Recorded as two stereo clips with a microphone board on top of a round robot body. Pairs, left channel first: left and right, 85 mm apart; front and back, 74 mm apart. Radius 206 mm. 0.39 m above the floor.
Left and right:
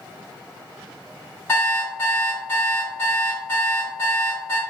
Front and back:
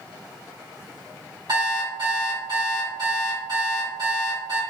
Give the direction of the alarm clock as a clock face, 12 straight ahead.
7 o'clock.